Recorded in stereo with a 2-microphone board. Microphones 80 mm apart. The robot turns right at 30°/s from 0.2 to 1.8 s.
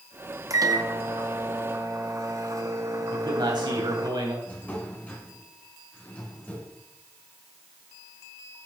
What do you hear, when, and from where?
0.5 s a microwave: 100° right, 0.9 m; by 4.1 s 65° right, 0.9 m
3.1 s a man speaking: 65° right (ahead or behind), 3 m
4.5 s a drawer: 20° left (ahead or behind), 2.5 m